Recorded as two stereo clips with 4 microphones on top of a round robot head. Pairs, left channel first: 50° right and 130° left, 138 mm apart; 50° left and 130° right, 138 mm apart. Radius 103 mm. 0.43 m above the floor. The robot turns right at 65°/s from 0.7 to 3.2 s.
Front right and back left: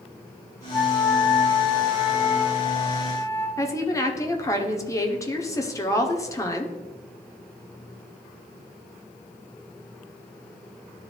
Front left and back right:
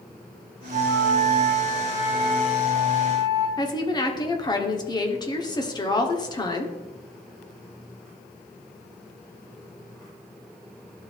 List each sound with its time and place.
0.7 s a flute: 145° right, 3.5 m; by 3.5 s 15° left, 3.5 m
3.6 s a woman speaking: 5° left, 1.2 m